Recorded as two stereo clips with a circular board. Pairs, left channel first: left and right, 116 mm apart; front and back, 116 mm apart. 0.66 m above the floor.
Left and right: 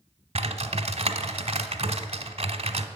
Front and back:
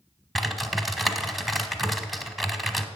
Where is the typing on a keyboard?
90° right, 0.9 m.